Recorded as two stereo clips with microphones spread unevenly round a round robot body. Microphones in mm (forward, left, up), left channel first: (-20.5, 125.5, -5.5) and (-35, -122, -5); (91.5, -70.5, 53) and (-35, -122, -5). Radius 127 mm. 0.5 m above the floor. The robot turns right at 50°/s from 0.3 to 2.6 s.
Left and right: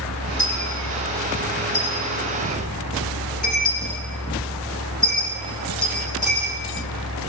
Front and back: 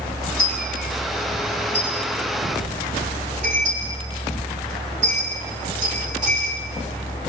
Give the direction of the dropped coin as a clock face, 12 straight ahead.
11 o'clock.